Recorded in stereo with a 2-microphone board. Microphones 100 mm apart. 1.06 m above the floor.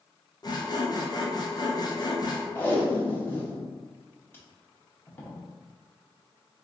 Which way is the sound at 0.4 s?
40° left (ahead or behind).